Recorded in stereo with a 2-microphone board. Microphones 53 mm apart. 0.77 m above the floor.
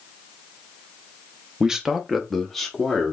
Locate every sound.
1.6 s a man speaking: 15° right (ahead or behind), 0.6 m; by 3.1 s 5° left (ahead or behind), 1.3 m